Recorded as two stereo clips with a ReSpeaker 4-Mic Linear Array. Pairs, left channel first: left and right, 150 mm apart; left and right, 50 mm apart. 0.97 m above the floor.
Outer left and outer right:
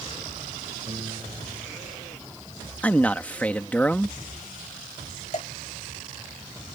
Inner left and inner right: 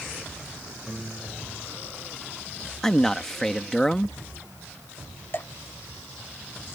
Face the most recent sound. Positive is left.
turn(degrees=50)  # may be behind; listen again after turning